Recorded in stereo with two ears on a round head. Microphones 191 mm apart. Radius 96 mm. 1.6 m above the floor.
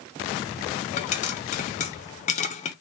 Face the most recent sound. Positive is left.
turn(degrees=35)  # may be behind; listen again after turning